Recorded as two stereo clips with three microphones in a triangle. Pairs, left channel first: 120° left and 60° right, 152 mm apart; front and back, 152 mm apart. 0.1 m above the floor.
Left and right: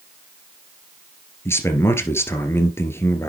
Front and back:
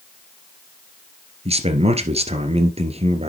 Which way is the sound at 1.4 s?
175° right.